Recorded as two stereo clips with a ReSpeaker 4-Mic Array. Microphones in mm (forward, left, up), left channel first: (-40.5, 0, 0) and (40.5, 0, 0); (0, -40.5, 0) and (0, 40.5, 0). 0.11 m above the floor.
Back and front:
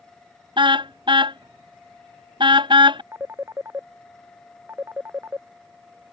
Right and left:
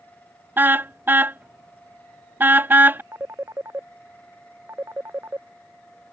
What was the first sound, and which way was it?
A car horn, 20° left.